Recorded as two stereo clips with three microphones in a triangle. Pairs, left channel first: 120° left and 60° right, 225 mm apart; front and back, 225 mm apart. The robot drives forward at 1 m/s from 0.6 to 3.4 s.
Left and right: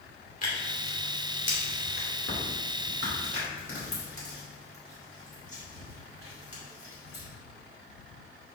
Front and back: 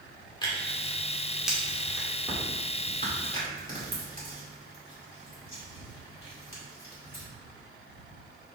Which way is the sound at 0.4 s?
70° left.